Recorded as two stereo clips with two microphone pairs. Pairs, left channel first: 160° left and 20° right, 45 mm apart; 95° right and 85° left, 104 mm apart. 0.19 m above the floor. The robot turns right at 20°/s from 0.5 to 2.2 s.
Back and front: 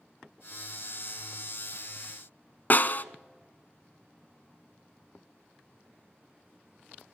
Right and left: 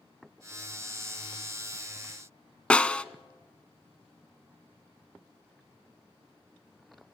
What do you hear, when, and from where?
2.7 s a snare drum: 170° right, 0.6 m